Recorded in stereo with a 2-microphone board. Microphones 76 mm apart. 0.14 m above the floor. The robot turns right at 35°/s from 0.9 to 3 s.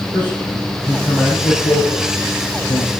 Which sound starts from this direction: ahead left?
A man speaking, at 0.1 s.